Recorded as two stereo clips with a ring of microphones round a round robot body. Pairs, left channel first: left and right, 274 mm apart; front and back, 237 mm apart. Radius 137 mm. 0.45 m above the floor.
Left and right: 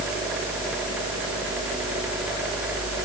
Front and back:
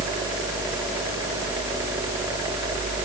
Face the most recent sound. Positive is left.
No sound to turn to.